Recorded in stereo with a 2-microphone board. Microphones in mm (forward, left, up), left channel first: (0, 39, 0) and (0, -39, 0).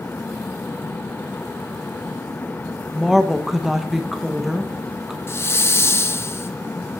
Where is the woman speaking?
5° right (ahead or behind), 1.0 m.